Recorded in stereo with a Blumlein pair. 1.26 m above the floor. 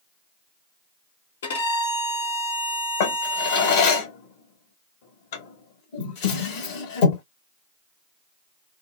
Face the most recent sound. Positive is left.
turn(degrees=50)